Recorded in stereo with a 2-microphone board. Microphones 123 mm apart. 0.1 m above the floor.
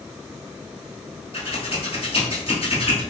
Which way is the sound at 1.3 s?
50° left (ahead or behind).